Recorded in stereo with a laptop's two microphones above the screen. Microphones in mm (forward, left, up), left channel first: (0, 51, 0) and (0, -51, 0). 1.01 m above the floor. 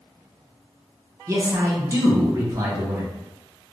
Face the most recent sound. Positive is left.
turn(degrees=-30)  # may be behind; listen again after turning